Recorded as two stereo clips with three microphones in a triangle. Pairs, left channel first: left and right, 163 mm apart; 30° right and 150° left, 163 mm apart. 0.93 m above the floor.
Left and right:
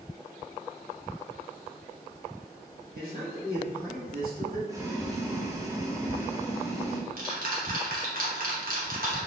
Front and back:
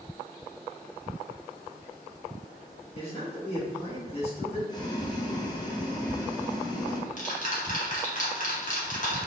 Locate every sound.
2.9 s a man speaking: 80° right, 1.5 m
4.7 s boiling: 50° right, 0.6 m
6.0 s ticking: 65° right, 0.9 m